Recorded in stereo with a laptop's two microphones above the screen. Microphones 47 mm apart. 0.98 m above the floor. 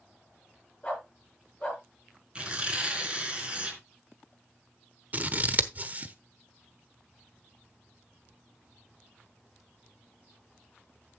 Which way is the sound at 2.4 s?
25° right (ahead or behind).